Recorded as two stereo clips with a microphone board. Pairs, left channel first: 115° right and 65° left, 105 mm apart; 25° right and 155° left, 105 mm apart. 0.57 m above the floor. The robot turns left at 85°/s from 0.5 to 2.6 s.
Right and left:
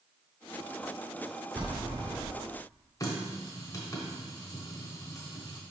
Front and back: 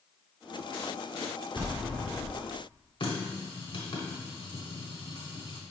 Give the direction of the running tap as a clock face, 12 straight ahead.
2 o'clock.